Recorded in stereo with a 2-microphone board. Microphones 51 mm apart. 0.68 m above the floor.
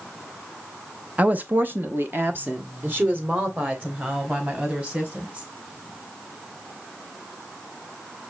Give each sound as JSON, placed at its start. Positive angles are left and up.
{"t": 1.2, "sound": "a woman speaking", "side_deg": -30, "distance_m": 0.7}